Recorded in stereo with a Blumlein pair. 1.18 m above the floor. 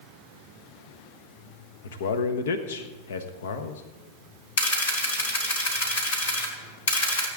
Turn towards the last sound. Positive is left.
turn(degrees=60)